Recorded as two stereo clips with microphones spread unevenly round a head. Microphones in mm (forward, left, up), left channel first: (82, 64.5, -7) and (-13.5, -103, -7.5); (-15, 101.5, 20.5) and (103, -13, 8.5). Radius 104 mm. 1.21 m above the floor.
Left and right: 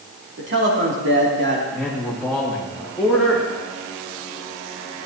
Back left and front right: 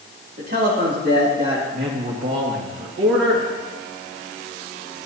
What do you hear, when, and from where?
0.4 s a man speaking: 90° right, 2.5 m
1.7 s a man speaking: 25° right, 1.9 m